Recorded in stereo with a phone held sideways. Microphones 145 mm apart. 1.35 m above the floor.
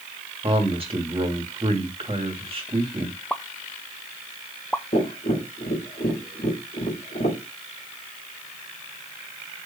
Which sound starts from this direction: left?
Tapping, at 4.9 s.